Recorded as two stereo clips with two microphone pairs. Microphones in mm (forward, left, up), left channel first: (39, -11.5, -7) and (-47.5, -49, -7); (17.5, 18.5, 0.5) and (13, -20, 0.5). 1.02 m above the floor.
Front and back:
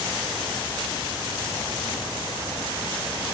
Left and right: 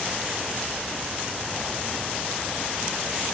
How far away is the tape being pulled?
No tape being pulled in this recording.